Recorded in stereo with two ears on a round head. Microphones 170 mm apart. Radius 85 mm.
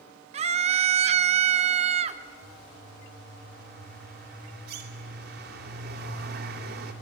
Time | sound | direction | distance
0.3 | a scream | 35° right (ahead or behind) | 0.9 m
2.4 | a bird | 60° right (ahead or behind) | 2.5 m